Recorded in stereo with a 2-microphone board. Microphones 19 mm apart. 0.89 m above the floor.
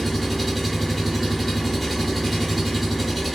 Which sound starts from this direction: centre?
An engine running, at 0.0 s.